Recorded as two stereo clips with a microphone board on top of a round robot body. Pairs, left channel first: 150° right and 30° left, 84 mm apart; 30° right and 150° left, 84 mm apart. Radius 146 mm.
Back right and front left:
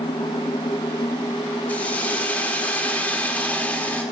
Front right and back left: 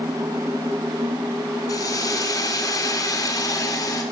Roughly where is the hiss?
Right.